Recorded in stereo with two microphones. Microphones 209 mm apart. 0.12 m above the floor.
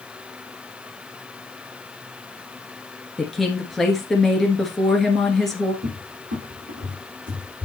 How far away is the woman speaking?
About 1.9 m.